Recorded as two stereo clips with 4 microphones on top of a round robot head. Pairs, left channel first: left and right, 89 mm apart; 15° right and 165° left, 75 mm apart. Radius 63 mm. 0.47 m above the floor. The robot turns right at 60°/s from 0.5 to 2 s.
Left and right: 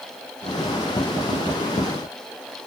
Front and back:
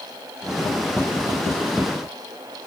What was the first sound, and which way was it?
Only background noise.